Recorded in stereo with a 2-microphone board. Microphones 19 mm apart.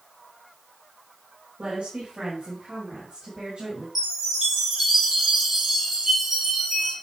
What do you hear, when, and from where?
1.6 s a woman speaking: 75° right (ahead or behind), 3.5 m; by 3.9 s 65° right (ahead or behind), 5 m
4.0 s a chime: 30° right (ahead or behind), 5 m